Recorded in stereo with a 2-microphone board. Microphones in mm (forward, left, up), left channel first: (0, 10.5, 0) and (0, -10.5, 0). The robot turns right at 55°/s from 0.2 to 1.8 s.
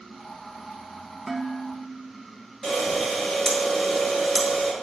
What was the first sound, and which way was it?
Dishes clattering, 5° left (ahead or behind).